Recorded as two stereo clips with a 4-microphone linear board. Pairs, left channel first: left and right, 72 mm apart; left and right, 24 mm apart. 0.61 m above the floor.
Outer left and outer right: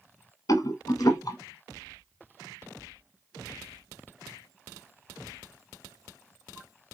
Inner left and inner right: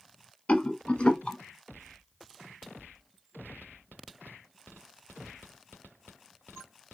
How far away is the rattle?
About 0.9 m.